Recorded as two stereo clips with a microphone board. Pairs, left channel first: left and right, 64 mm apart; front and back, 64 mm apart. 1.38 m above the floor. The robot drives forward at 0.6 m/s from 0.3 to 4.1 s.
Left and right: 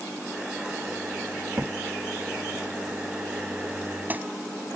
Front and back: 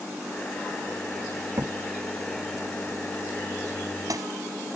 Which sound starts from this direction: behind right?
A crack, at 1.6 s.